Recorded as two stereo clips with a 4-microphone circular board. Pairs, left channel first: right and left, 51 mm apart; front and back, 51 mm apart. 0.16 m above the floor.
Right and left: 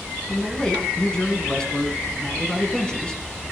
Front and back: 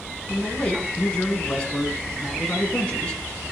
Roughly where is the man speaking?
Ahead right.